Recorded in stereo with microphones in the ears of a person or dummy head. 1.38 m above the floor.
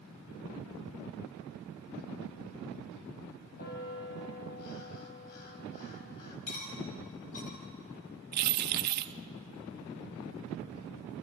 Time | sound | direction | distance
3.6 | a bell | 50° left (ahead or behind) | 3.5 m
6.5 | cutlery clinking | 45° left (ahead or behind) | 4.5 m
8.3 | keys jangling | 45° right (ahead or behind) | 0.6 m